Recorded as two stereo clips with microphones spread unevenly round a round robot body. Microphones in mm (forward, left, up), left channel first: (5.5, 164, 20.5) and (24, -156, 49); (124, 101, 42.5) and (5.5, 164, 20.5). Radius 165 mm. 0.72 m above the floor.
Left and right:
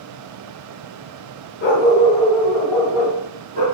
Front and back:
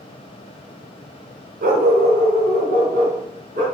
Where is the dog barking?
150° left, 1.5 m; by 3.6 s 160° right, 3 m.